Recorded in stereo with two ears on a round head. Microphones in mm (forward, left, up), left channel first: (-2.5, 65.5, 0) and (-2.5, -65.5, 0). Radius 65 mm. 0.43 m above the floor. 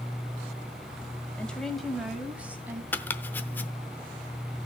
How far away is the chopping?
About 0.7 m.